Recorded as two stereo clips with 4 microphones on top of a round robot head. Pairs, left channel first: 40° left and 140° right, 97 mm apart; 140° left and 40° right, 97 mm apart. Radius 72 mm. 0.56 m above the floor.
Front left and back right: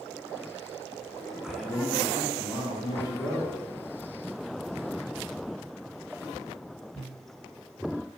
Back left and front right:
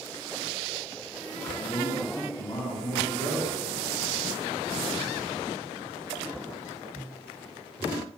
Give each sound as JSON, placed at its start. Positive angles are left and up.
{"t": 1.4, "sound": "a man speaking", "azimuth_deg": 145, "distance_m": 0.6}